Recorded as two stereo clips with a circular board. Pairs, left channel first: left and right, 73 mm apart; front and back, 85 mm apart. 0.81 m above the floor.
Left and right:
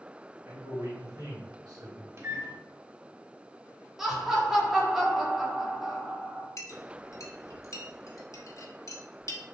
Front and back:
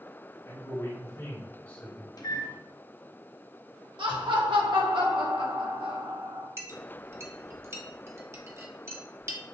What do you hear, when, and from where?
0.5 s a man speaking: 45° right, 2.5 m; by 2.1 s 75° right, 1.7 m
2.2 s a microwave: 40° right, 0.8 m
4.0 s laughter: 175° right, 1.4 m
6.6 s a clink: 125° left, 0.7 m